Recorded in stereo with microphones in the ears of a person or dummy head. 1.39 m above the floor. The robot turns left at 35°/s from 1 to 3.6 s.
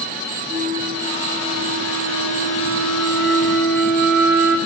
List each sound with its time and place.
0.5 s a flute: 40° right, 0.7 m; by 4.6 s 130° right, 0.7 m